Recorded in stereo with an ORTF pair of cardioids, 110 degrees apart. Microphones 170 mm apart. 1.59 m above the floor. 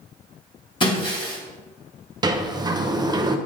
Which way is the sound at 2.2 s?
25° right.